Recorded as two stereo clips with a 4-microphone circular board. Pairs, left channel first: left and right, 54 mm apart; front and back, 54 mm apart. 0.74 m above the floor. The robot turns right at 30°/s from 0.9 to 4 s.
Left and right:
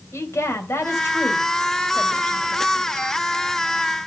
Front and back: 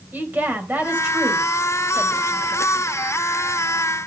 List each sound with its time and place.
0.1 s a woman speaking: 125° left, 3.5 m; by 2.6 s 175° left, 3.5 m